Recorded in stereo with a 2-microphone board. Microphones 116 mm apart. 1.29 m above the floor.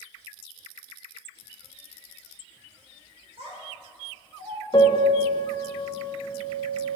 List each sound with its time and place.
3.4 s a child speaking: 60° right (ahead or behind), 2 m
4.7 s a piano: 40° left (ahead or behind), 0.8 m